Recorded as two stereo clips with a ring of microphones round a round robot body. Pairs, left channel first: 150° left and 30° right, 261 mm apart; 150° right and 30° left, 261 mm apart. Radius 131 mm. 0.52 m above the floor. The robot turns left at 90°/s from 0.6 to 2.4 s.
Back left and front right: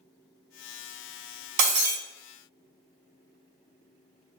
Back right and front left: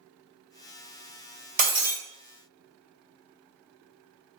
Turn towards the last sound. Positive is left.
turn(degrees=-100)